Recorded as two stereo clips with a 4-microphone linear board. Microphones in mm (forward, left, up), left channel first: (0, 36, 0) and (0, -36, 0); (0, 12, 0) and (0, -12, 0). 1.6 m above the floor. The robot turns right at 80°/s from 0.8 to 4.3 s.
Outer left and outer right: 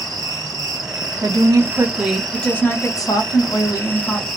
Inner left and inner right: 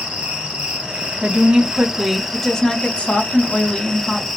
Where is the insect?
105° right, 1.1 m; by 4.4 s 175° left, 1.1 m.